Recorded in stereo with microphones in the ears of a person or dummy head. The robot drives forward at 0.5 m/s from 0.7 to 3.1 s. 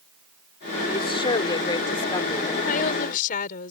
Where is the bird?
No bird in this recording.